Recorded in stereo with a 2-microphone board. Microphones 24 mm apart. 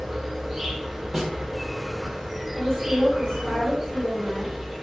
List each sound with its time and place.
0.0 s an insect: 5° right (ahead or behind), 1.0 m
1.1 s a snare drum: 5° left (ahead or behind), 1.2 m
2.5 s a woman speaking: 25° left (ahead or behind), 1.5 m